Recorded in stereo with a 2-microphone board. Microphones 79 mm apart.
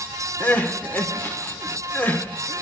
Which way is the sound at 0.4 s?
25° left (ahead or behind).